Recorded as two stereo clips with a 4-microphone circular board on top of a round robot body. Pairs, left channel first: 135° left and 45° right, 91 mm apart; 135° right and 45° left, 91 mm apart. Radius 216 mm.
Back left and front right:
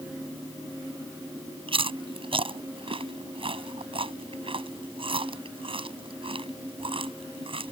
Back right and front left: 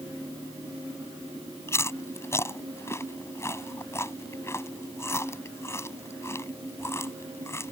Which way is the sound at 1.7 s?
70° right.